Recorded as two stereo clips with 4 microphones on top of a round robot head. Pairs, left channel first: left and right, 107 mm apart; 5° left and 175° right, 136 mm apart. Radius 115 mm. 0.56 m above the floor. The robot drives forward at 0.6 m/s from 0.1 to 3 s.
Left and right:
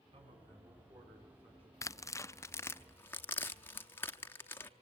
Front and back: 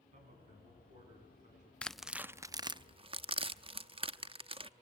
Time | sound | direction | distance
0.1 | a man speaking | 135° right | 7.5 m
1.8 | tearing paper | 75° left | 0.7 m